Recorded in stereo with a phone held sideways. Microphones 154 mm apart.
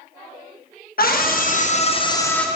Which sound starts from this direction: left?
A scream, at 1.0 s.